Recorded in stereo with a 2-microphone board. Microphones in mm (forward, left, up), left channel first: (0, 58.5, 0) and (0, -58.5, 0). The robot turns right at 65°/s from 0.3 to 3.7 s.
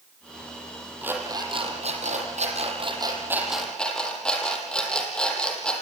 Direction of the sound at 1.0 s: 170° right.